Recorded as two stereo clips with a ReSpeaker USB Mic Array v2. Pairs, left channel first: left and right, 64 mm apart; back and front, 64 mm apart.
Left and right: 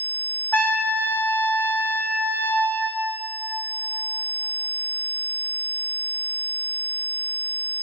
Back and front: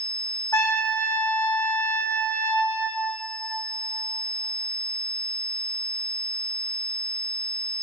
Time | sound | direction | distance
0.5 | a trumpet | 150° left | 1.5 m